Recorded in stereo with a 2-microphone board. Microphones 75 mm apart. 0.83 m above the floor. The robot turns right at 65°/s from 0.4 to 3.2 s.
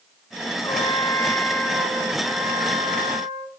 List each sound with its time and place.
0.6 s a trumpet: 110° left, 8 m; by 3.5 s 80° right, 8 m